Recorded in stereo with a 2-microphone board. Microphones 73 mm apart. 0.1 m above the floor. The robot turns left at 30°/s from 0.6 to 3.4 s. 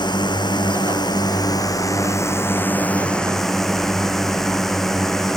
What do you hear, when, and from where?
0.0 s a drone: 90° left; by 5.4 s 5° left